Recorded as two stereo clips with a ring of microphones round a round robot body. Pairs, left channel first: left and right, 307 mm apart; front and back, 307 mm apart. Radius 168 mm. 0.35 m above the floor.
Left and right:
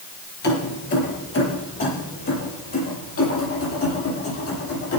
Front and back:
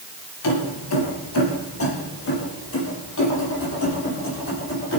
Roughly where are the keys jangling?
Ahead left.